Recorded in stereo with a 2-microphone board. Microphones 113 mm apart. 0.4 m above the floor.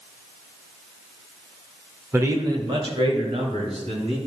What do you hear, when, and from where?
2.1 s a man speaking: 20° right (ahead or behind), 0.8 m; by 4.2 s 70° right (ahead or behind), 2.5 m